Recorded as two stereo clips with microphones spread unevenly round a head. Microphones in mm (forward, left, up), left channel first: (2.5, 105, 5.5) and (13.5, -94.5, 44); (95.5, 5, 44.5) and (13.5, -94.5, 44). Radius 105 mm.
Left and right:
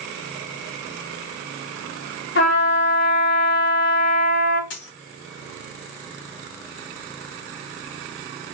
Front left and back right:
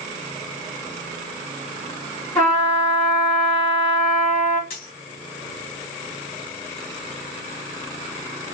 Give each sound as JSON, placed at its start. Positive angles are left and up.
{"t": 2.4, "sound": "a trumpet", "azimuth_deg": 125, "distance_m": 1.9}
{"t": 4.7, "sound": "a dropped coin", "azimuth_deg": 80, "distance_m": 1.9}